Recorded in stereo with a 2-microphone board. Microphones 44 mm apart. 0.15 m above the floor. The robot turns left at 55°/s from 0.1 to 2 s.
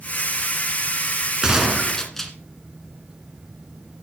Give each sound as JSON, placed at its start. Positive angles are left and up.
{"t": 1.4, "sound": "a gunshot", "azimuth_deg": -160, "distance_m": 2.0}